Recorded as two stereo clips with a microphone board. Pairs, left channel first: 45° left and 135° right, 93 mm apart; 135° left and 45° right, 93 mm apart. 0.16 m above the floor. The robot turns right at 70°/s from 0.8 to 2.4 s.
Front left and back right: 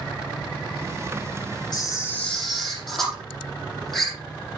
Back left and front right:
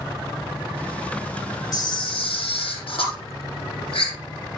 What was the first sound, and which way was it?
A camera shutter, 85° left.